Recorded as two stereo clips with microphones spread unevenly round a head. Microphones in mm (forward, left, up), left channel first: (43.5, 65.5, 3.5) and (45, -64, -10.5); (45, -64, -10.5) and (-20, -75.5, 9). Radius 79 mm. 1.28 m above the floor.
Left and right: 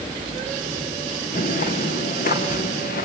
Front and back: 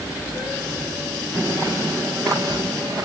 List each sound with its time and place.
1.3 s footsteps: 100° left, 3 m; by 3.0 s 105° left, 4.5 m